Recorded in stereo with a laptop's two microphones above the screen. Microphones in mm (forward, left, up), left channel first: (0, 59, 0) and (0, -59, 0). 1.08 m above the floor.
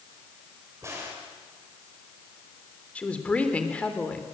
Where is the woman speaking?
10° left (ahead or behind), 3.5 m.